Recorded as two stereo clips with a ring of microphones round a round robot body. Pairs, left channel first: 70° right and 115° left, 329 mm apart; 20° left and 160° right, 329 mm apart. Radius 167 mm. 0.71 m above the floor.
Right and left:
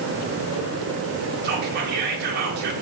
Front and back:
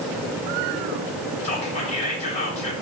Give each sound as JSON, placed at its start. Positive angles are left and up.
{"t": 1.4, "sound": "whispering", "azimuth_deg": 80, "distance_m": 0.5}